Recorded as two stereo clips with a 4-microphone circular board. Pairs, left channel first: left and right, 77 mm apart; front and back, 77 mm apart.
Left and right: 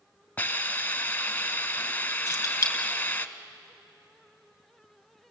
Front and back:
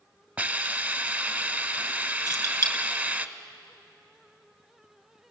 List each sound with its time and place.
0.4 s a hiss: 130° left, 1.1 m
2.3 s keys jangling: 40° left, 3 m